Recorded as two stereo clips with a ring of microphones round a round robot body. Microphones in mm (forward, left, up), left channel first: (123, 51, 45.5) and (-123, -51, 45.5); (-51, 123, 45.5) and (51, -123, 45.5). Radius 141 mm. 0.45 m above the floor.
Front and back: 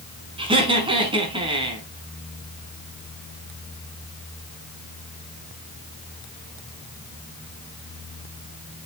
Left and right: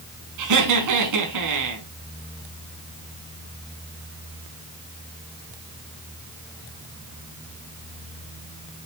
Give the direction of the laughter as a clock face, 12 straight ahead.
3 o'clock.